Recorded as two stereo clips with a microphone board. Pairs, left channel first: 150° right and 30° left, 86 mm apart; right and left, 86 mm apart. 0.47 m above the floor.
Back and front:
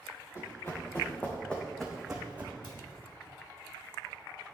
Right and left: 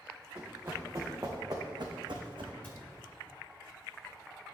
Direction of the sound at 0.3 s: 155° left.